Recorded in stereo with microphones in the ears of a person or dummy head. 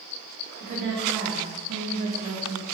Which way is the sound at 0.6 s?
40° right (ahead or behind).